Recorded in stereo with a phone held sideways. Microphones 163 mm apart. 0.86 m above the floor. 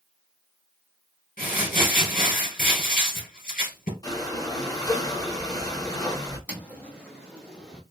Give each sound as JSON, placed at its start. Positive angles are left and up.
{"t": 1.4, "sound": "crumpling", "side_deg": 65, "distance_m": 3.0}
{"t": 4.0, "sound": "breathing", "side_deg": 25, "distance_m": 1.6}
{"t": 6.5, "sound": "footsteps", "side_deg": 10, "distance_m": 2.5}